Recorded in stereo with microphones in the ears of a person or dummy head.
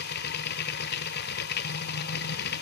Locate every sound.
0.0 s a machine running: 55° left (ahead or behind), 1.0 m